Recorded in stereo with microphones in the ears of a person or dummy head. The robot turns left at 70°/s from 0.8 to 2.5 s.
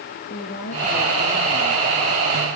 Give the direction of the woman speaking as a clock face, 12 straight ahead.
8 o'clock.